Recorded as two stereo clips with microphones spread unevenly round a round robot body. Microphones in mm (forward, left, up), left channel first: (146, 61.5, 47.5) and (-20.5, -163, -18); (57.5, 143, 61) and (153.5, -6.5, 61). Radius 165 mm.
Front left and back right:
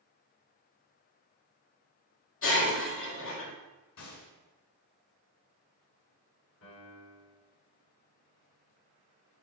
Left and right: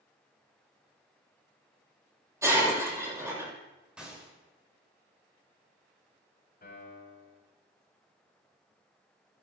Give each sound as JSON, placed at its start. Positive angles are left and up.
{"t": 2.4, "sound": "breaking glass", "azimuth_deg": 15, "distance_m": 6.0}
{"t": 4.0, "sound": "a gunshot", "azimuth_deg": 25, "distance_m": 6.0}
{"t": 6.6, "sound": "a piano", "azimuth_deg": 100, "distance_m": 6.0}